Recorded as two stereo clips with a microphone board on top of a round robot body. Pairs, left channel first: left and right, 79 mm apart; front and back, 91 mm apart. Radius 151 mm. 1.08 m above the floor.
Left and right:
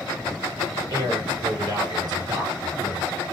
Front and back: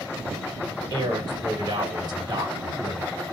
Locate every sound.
0.9 s a man speaking: 130° right, 1.6 m